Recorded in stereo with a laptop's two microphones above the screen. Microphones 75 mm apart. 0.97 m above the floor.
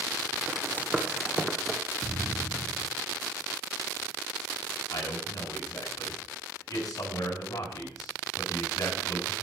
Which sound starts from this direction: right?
Running footsteps, at 0.5 s.